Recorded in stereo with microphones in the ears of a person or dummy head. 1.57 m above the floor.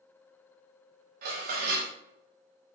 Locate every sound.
1.2 s dishes clattering: 50° right (ahead or behind), 1.1 m